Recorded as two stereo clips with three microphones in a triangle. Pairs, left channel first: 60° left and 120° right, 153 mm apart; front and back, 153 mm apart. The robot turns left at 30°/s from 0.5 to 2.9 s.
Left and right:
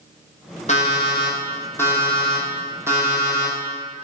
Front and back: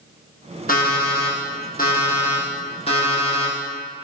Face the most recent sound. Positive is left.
turn(degrees=-50)